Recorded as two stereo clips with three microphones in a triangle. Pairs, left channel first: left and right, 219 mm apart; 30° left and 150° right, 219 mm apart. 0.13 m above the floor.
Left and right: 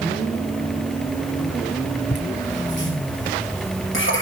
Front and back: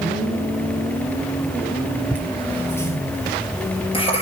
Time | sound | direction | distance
2.1 | laughter | 115° left | 3 m